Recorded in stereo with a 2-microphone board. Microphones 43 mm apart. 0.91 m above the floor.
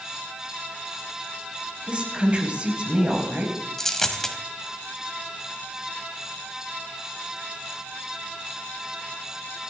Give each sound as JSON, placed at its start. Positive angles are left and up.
{"t": 1.9, "sound": "a woman speaking", "side_deg": -30, "distance_m": 4.5}
{"t": 3.8, "sound": "a dropped coin", "side_deg": 10, "distance_m": 2.0}